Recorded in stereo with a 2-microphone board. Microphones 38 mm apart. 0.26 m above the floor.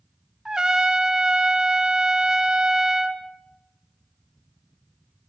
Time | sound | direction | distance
0.5 | a trumpet | 20° right (ahead or behind) | 0.9 m